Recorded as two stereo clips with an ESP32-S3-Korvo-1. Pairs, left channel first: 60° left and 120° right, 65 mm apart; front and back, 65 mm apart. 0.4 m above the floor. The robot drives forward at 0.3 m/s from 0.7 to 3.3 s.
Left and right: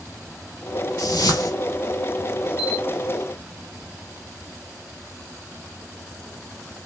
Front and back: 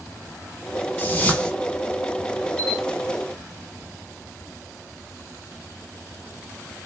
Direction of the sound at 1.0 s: 55° left.